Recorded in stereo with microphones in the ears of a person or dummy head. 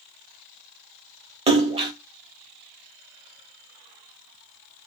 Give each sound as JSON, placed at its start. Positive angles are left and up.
{"t": 1.5, "sound": "a splash", "side_deg": -25, "distance_m": 0.6}